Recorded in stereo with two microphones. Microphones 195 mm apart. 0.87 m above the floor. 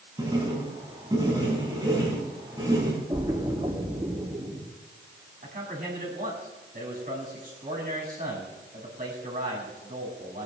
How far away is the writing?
About 5 m.